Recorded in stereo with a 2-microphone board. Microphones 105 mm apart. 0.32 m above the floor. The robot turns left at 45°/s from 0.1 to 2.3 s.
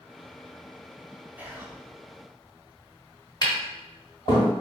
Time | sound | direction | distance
1.4 | whispering | 15° right (ahead or behind) | 0.8 m
3.4 | tapping | 40° left (ahead or behind) | 1.9 m